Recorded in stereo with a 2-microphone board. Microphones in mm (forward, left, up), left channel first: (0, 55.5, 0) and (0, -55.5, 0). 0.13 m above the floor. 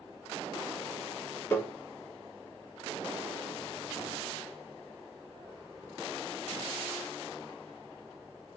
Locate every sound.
1.5 s tapping: 25° left (ahead or behind), 1.2 m